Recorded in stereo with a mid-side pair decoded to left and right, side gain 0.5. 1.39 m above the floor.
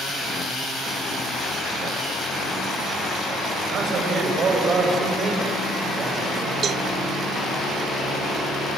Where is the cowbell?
50° right, 0.6 m.